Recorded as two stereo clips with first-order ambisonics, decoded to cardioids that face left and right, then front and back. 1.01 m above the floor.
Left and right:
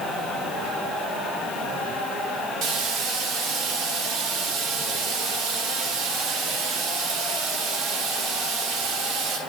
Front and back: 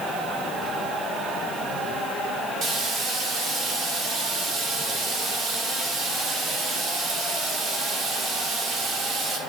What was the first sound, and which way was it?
Frying, 125° right.